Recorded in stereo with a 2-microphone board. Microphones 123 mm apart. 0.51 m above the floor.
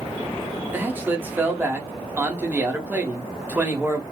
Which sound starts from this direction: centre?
A man speaking, at 0.7 s.